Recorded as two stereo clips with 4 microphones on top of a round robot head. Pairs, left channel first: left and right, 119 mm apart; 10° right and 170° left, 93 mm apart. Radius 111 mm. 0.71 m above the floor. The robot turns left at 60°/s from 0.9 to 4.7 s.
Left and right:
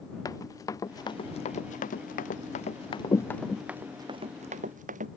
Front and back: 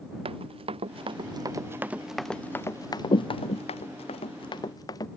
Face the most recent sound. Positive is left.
turn(degrees=-70)